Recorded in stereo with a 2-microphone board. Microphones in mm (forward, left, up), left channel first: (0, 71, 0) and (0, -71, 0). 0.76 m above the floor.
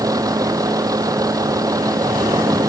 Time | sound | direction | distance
0.0 | a vehicle | 25° right (ahead or behind) | ?